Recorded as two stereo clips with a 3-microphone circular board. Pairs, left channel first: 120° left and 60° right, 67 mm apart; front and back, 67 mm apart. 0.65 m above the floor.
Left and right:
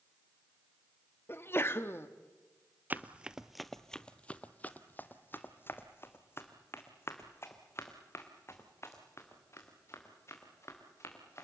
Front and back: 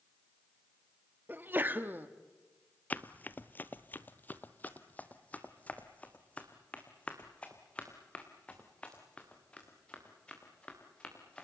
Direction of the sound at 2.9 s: 35° right.